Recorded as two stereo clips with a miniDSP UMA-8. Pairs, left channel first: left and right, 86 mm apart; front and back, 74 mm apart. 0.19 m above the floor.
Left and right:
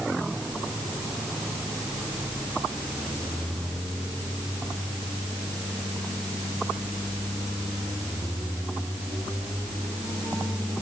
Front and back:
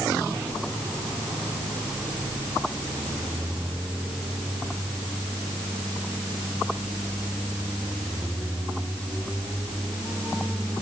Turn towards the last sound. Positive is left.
No sound to turn to.